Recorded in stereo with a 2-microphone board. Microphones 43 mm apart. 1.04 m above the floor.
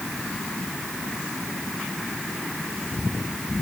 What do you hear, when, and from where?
Only background noise.